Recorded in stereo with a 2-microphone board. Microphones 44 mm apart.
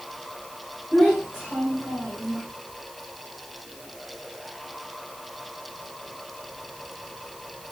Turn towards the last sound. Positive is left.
turn(degrees=5)  # may be behind; listen again after turning